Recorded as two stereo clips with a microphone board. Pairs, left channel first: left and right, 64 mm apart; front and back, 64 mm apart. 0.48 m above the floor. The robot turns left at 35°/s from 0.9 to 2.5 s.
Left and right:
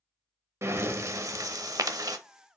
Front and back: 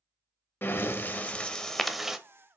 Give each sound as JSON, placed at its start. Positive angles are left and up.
{"t": 0.6, "sound": "breathing", "azimuth_deg": -55, "distance_m": 0.5}